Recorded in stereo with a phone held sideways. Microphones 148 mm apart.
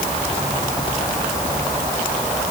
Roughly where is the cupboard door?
I don't hear a cupboard door.